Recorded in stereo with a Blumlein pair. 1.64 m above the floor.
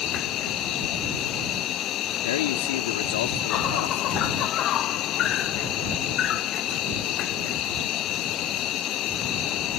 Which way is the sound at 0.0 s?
35° left.